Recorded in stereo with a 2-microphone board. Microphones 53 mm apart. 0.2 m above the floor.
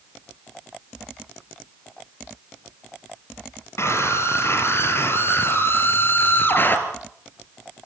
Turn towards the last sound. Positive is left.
turn(degrees=40)  # may be behind; listen again after turning